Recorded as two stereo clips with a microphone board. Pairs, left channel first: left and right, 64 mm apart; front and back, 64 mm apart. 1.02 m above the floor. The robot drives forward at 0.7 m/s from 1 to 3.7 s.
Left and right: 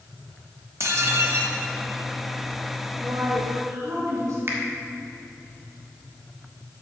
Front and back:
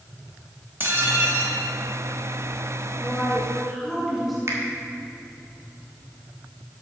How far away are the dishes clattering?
About 1.2 m.